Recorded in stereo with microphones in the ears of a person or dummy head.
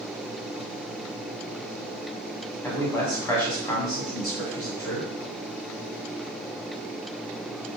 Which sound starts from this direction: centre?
A man speaking, at 2.6 s.